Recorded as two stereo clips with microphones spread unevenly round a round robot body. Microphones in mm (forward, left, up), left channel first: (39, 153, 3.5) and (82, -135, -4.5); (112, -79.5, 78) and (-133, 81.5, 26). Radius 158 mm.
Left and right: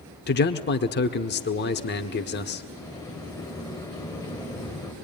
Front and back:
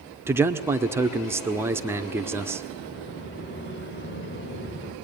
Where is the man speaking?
90° left, 1.4 m.